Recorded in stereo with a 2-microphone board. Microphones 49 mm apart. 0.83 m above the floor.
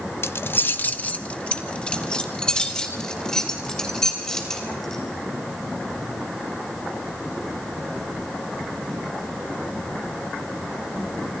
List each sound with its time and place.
0.2 s keys jangling: 65° left (ahead or behind), 0.5 m; by 5.0 s 10° left (ahead or behind), 3.5 m